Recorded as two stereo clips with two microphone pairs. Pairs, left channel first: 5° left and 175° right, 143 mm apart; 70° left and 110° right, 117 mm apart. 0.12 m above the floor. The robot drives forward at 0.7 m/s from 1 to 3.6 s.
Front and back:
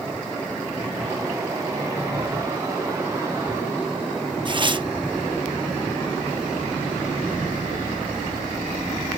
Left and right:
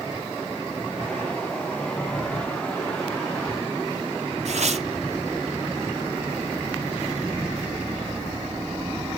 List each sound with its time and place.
4.5 s tearing paper: 120° right, 0.6 m